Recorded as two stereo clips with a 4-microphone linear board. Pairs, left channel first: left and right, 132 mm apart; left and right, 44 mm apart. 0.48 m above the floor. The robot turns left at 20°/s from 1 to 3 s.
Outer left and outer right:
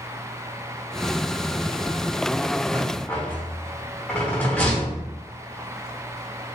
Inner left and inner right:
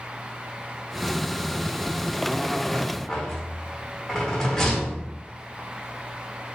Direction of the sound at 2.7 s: 10° left (ahead or behind).